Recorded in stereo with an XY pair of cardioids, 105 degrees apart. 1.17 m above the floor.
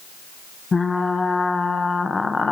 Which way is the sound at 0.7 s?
30° left.